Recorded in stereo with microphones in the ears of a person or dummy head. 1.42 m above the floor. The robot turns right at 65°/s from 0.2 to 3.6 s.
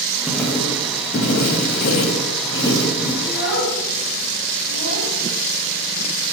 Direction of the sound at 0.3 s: Straight ahead.